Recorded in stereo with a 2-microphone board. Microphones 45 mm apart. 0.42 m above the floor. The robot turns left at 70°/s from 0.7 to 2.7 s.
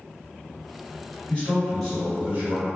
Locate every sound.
1.3 s a man speaking: 40° left, 1.8 m; by 2.7 s 60° right, 1.8 m